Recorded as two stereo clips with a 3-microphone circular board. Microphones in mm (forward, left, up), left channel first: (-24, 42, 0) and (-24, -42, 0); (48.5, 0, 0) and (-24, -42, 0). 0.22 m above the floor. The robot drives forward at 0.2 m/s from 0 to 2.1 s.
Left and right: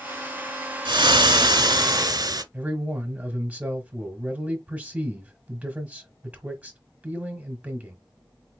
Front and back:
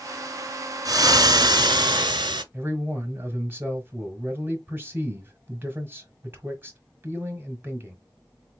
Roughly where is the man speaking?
Behind right.